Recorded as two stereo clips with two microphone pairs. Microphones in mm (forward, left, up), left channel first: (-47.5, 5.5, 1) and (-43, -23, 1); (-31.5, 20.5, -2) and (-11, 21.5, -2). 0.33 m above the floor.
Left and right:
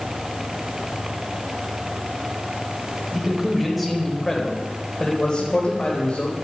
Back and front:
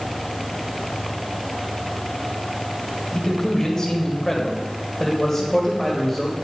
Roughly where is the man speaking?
Behind right.